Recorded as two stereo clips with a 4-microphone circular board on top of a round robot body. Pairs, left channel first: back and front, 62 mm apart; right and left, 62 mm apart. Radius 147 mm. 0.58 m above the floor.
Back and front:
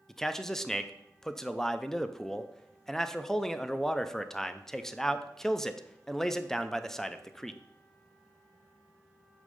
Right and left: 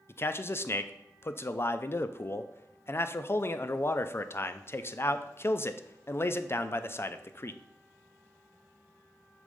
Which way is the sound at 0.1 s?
100° right.